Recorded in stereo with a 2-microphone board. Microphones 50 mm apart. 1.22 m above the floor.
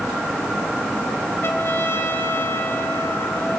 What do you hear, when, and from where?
1.4 s a trumpet: 50° left (ahead or behind), 1.8 m